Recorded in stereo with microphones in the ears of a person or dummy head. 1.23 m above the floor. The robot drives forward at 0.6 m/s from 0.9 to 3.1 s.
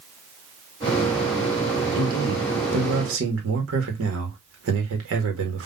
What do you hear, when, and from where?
1.9 s a man speaking: 80° right, 1.9 m; by 5.7 s 75° right (ahead or behind), 2.0 m